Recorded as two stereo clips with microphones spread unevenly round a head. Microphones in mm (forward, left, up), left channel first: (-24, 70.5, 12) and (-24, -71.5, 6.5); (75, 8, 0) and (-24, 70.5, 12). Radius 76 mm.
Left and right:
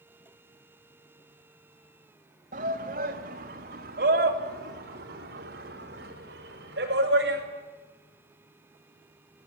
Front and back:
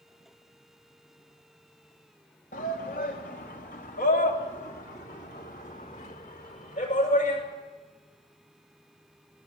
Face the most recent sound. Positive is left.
turn(degrees=-70)